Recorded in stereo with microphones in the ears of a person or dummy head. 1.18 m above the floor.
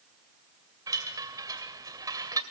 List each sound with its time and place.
0.9 s a chime: 15° right (ahead or behind), 2 m